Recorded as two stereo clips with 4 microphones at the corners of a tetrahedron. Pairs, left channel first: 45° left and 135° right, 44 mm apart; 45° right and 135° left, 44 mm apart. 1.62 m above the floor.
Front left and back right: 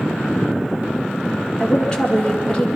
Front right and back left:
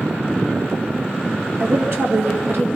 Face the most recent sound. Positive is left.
turn(degrees=115)